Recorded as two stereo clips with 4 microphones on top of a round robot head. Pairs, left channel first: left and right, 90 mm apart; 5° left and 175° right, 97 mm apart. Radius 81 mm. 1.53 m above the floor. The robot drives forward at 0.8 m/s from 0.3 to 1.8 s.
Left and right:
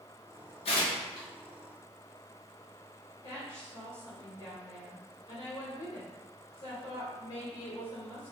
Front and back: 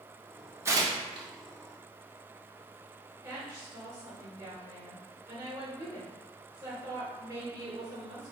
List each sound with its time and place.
0.7 s tearing paper: 125° left, 0.5 m; by 1.3 s 150° left, 0.9 m
3.2 s a woman speaking: 140° left, 1.9 m